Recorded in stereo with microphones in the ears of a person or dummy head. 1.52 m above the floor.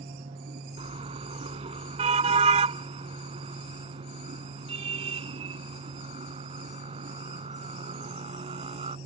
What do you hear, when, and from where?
0.8 s a car horn: 25° right (ahead or behind)